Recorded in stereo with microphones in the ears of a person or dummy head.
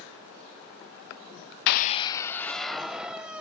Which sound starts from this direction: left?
A scream, at 1.7 s.